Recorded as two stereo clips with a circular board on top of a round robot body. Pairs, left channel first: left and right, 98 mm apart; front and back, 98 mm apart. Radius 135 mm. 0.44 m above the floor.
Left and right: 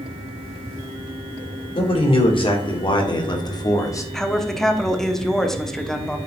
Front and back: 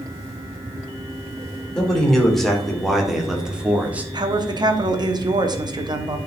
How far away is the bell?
No bell in this recording.